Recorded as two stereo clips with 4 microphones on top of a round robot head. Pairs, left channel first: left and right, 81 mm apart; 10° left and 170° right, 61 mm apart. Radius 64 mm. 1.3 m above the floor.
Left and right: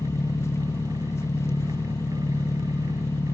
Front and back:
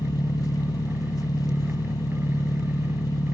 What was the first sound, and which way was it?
An engine running, 35° left.